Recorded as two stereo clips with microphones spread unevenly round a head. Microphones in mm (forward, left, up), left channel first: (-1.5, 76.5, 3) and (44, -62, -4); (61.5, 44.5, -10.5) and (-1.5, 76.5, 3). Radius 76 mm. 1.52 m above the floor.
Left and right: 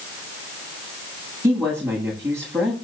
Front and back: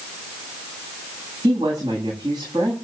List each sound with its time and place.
1.4 s a woman speaking: 145° right, 8.5 m